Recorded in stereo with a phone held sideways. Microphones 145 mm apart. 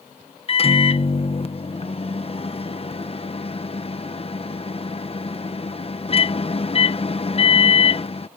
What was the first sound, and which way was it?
A microwave, 40° left (ahead or behind).